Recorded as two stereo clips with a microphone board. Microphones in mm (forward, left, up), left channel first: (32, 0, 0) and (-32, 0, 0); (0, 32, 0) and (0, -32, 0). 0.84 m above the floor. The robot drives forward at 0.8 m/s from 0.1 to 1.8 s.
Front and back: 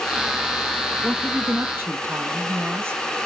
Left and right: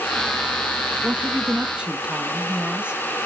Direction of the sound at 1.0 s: 100° right.